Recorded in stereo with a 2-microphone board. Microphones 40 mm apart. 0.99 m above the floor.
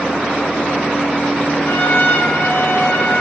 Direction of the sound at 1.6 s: 65° left (ahead or behind).